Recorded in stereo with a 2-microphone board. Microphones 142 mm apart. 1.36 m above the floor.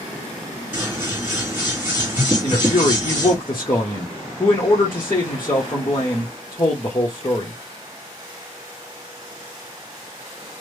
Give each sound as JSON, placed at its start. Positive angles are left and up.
{"t": 0.7, "sound": "scissors", "side_deg": -10, "distance_m": 2.0}
{"t": 2.4, "sound": "a man speaking", "side_deg": 30, "distance_m": 0.9}